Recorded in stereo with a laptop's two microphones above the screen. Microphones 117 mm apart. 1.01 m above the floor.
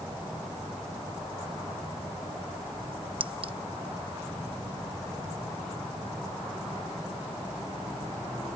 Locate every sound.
3.2 s a clink: 50° right (ahead or behind)